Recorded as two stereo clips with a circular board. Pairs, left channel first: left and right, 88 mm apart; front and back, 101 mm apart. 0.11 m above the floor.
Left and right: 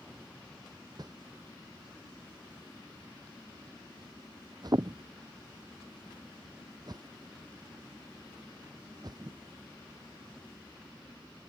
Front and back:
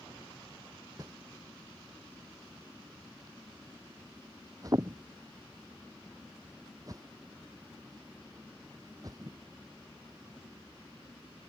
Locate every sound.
1.0 s a whoosh: 125° right